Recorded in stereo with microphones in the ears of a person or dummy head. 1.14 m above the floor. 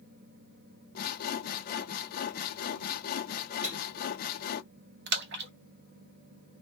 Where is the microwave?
10° right (ahead or behind), 1.1 m.